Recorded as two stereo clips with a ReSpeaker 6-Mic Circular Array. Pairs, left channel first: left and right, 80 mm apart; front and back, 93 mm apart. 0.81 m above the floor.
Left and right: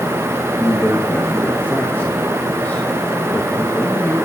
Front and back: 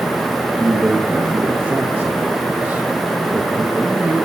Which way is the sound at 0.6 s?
130° left.